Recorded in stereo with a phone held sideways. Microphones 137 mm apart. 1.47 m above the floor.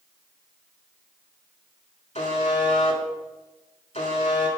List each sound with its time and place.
2.1 s a buzzer: 50° left (ahead or behind), 1.7 m